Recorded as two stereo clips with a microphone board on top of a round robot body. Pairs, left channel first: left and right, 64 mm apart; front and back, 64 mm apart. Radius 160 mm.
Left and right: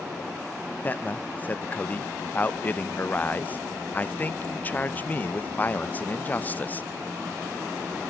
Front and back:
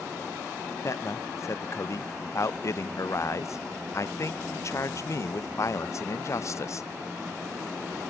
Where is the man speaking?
30° left, 0.7 m.